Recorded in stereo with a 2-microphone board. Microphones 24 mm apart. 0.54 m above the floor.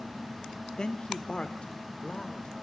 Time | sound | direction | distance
0.8 | a man speaking | 30° left (ahead or behind) | 1.0 m